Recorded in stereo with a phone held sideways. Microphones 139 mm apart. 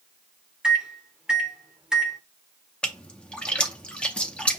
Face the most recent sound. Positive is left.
turn(degrees=10)  # may be behind; listen again after turning